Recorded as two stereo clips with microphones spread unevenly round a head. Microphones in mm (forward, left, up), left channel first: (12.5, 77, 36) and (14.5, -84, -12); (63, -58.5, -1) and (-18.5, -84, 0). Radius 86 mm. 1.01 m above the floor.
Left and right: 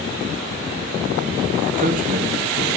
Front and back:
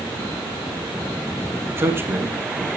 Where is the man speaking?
100° right, 1.7 m.